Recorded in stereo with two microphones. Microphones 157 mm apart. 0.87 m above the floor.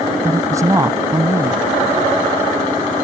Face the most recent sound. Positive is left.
turn(degrees=-20)  # may be behind; listen again after turning